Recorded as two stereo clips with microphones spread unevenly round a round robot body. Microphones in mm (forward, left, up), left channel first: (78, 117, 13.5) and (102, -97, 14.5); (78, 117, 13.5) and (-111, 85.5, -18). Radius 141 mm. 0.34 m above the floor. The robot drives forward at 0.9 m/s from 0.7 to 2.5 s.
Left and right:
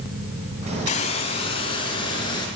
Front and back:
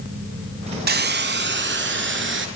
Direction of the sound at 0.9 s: 160° left.